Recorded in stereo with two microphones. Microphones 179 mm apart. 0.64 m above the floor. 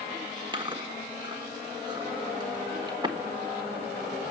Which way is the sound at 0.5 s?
25° right (ahead or behind).